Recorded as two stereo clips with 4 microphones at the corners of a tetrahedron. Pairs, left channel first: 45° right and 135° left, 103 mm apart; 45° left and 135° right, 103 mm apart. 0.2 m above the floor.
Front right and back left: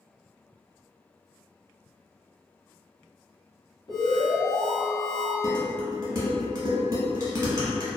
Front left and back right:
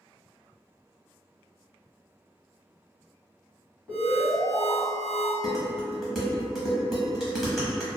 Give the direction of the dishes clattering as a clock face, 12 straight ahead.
7 o'clock.